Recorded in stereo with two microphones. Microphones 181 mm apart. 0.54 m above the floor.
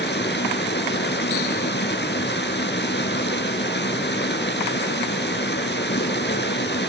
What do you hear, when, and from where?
0.0 s running water: 75° left (ahead or behind), 2.5 m